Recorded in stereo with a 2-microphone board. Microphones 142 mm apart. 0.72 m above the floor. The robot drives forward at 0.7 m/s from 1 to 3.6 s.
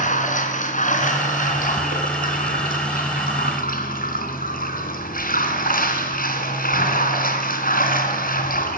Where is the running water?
65° left (ahead or behind), 3.5 m; by 8.8 s 85° left, 3 m.